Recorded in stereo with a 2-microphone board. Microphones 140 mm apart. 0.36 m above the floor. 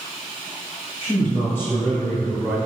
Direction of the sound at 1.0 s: 20° left (ahead or behind).